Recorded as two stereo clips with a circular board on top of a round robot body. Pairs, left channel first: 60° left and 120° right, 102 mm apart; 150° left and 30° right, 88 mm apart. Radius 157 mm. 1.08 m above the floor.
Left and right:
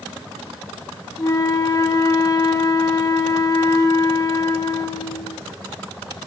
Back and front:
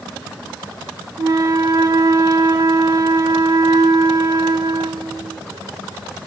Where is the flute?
10° left, 1.2 m.